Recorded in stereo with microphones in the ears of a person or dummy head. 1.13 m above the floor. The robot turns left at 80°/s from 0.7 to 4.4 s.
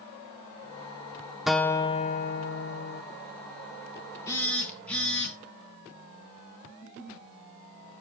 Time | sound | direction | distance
1.5 | a guitar | 175° right | 0.5 m
4.3 | a phone buzzing | 20° left (ahead or behind) | 2.5 m
6.7 | a giggle | 50° left (ahead or behind) | 3.5 m